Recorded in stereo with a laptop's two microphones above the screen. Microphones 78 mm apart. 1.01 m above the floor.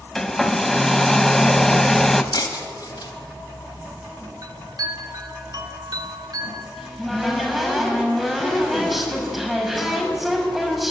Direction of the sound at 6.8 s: Centre (ahead or behind).